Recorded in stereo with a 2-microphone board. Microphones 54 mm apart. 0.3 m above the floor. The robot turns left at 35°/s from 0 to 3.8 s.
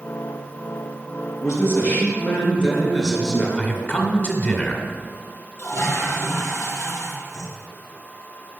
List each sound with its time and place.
1.4 s a man speaking: 60° left, 4 m; by 3.5 s 15° right, 4 m
3.6 s a man speaking: 25° left (ahead or behind), 2 m; by 4.8 s 30° left (ahead or behind), 2 m
5.6 s a toilet flushing: 50° left (ahead or behind), 2.5 m